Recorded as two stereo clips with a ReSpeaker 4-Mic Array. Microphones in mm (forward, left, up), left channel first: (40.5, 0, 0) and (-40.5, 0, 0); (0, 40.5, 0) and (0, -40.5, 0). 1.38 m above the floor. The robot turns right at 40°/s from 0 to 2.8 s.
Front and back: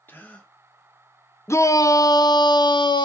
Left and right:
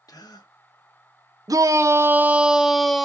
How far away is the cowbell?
No cowbell in this recording.